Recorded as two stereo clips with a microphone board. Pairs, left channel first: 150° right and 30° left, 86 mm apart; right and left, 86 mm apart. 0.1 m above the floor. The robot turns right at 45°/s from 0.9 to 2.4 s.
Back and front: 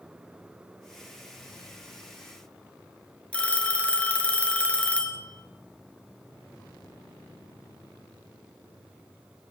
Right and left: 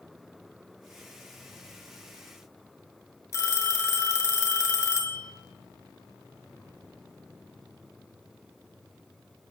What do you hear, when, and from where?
3.3 s a phone ringing: 85° right, 0.8 m